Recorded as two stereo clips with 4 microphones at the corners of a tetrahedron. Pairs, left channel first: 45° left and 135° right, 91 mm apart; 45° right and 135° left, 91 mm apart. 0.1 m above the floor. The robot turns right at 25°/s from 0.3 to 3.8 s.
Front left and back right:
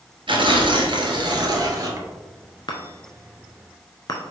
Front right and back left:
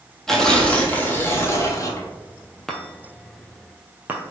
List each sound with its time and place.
0.3 s tearing paper: 130° right, 0.9 m; by 2.1 s 85° right, 0.9 m
2.7 s a chime: 40° left, 0.9 m; by 4.2 s 70° left, 0.9 m